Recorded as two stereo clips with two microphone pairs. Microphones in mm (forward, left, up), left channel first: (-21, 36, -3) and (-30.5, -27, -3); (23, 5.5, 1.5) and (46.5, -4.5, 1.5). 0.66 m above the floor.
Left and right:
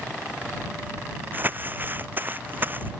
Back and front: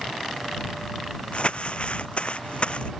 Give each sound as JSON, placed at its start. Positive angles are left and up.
{"t": 1.3, "sound": "crumpling", "azimuth_deg": -160}